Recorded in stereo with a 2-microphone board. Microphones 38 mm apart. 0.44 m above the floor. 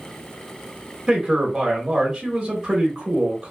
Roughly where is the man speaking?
Centre.